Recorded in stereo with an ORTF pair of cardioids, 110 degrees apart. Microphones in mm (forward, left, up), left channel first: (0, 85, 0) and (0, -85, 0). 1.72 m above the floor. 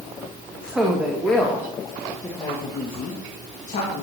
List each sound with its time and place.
0.6 s a woman speaking: 10° right, 2.5 m; by 4.0 s 55° left, 2.5 m